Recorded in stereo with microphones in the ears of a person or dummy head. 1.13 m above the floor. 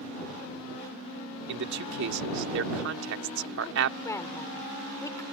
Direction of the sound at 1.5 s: 70° right (ahead or behind).